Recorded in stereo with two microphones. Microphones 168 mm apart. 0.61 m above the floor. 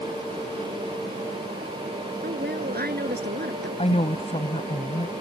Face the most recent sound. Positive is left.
turn(degrees=35)  # may be behind; listen again after turning